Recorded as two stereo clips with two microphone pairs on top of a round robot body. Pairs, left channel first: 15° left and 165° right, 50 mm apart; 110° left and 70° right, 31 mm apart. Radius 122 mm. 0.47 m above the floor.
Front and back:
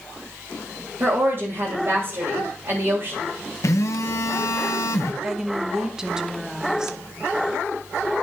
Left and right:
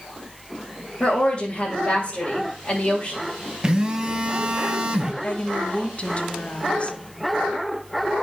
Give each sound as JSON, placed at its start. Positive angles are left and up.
{"t": 1.0, "sound": "a woman speaking", "azimuth_deg": 165, "distance_m": 2.5}
{"t": 3.6, "sound": "a phone buzzing", "azimuth_deg": -5, "distance_m": 0.9}
{"t": 5.2, "sound": "a woman speaking", "azimuth_deg": 115, "distance_m": 1.1}